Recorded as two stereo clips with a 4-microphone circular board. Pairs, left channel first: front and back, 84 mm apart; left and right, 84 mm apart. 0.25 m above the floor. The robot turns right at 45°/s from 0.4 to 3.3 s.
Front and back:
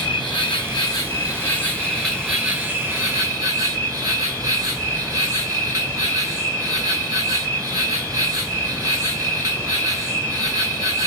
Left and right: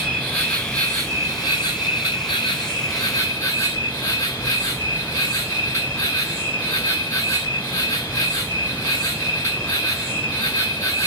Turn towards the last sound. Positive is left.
turn(degrees=140)